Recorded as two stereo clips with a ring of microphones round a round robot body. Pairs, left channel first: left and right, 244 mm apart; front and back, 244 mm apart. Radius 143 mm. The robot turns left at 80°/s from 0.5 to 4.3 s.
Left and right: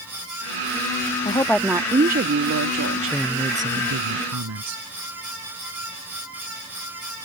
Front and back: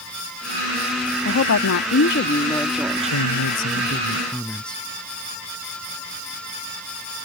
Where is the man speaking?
10° left; by 4.8 s 85° right.